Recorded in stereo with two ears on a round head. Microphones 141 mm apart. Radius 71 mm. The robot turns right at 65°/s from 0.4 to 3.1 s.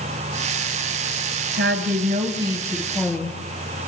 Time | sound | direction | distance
1.5 | a woman speaking | 90° right | 4 m